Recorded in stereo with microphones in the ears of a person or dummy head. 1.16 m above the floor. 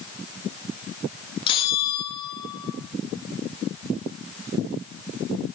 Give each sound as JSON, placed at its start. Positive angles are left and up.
{"t": 1.5, "sound": "a bell", "side_deg": 30, "distance_m": 1.3}